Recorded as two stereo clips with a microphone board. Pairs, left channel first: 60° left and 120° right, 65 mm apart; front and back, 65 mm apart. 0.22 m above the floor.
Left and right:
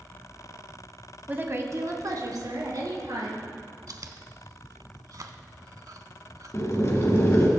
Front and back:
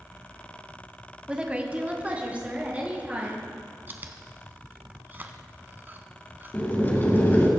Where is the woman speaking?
125° right, 1.0 m; by 3.5 s 110° right, 3.5 m.